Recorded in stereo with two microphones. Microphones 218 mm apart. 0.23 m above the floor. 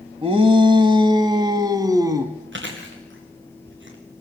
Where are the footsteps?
No footsteps in this recording.